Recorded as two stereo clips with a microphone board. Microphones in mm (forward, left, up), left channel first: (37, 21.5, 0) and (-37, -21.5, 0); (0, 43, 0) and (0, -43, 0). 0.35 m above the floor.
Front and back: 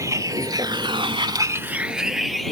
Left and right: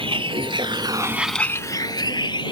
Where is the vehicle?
95° right; by 2.5 s 120° left.